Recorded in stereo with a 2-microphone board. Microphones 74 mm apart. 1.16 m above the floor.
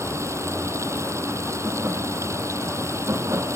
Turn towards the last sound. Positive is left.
turn(degrees=-40)  # may be behind; listen again after turning